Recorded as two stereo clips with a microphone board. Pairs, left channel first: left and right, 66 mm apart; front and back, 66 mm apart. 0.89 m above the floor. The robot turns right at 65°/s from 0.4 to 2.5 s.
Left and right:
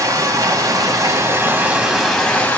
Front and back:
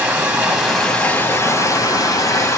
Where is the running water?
110° right, 1.5 m; by 2.6 s 25° left, 1.5 m.